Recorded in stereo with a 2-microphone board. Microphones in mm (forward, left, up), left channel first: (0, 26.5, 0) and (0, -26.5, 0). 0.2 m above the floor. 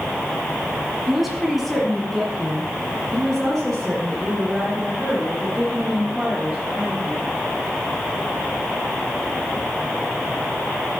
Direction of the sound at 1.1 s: 5° right (ahead or behind).